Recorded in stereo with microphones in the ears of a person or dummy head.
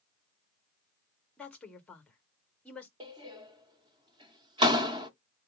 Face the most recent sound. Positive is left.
turn(degrees=-20)  # may be behind; listen again after turning